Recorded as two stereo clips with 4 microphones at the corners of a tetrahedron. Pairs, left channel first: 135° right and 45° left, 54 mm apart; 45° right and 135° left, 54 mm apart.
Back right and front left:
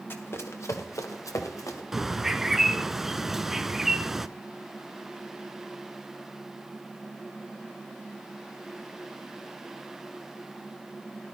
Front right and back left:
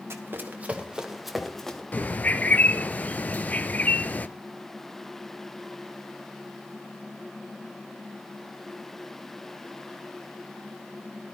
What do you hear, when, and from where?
0.1 s running footsteps: straight behind, 1.8 m; by 1.8 s 125° right, 2.5 m
1.9 s a bird: 30° right, 0.6 m